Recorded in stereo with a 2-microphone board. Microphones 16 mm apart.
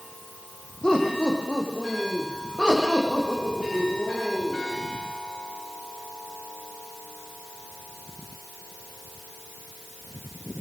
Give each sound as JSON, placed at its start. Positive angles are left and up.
{"t": 0.8, "sound": "laughter", "side_deg": 60, "distance_m": 6.0}